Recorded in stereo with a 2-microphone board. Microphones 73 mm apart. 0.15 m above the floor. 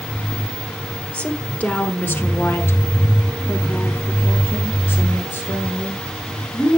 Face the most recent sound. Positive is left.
turn(degrees=25)  # may be behind; listen again after turning